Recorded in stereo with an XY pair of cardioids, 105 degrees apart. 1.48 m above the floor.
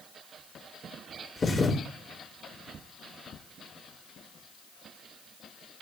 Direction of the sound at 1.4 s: 35° left.